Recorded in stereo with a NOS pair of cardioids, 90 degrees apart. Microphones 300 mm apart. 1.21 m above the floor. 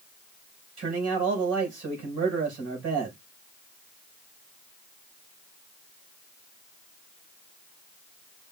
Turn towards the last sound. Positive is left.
turn(degrees=-55)